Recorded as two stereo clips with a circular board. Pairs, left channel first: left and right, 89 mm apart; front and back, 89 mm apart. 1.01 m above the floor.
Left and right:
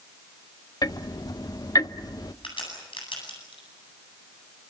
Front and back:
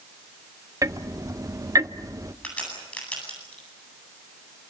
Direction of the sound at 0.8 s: 130° left.